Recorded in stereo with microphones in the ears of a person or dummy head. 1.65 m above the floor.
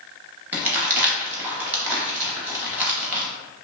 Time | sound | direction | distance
0.5 | crumpling | 10° right (ahead or behind) | 0.7 m